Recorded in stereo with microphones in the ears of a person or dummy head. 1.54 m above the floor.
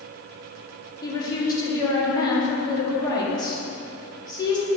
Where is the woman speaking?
20° left (ahead or behind), 1.5 m.